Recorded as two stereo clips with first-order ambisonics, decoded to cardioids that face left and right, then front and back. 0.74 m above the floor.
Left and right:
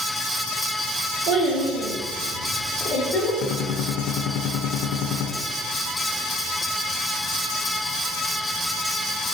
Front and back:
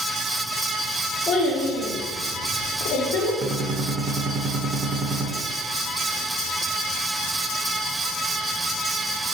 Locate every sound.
1.3 s a child speaking: 60° right, 1.0 m; by 3.3 s 25° left, 1.2 m
3.4 s a gunshot: 120° left, 0.6 m